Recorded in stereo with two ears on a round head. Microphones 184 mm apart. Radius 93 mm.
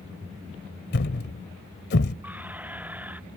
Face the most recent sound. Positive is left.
turn(degrees=-10)  # may be behind; listen again after turning